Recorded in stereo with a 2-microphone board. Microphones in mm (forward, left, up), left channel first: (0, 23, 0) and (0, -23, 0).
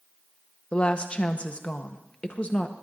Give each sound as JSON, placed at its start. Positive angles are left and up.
{"t": 0.7, "sound": "a woman speaking", "side_deg": 30, "distance_m": 1.0}